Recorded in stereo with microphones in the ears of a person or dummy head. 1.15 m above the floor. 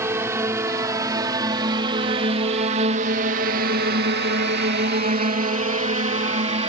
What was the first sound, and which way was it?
A drone, 15° right (ahead or behind).